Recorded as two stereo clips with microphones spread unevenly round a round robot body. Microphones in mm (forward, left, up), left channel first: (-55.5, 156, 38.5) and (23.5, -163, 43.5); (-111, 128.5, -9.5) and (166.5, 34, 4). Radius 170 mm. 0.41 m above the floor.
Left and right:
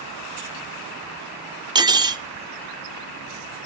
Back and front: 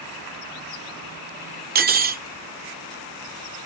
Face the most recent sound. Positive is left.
turn(degrees=-10)